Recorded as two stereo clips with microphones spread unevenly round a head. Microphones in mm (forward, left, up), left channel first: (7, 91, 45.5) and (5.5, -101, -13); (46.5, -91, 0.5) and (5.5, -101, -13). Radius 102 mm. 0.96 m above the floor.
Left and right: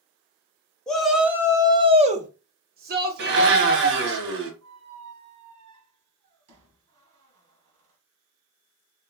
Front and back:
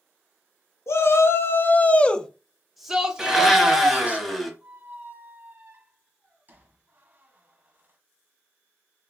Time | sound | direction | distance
0.9 | a shout | 5° right | 1.0 m
3.2 | a blender | 60° right | 1.1 m
4.6 | a squeak | 105° right | 1.8 m